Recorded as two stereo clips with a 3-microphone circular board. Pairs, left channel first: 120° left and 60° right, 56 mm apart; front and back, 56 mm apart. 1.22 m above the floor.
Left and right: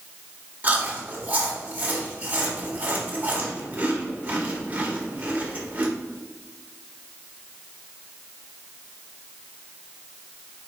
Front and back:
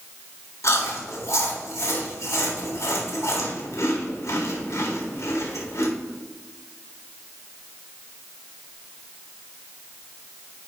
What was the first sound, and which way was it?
Chewing, 5° right.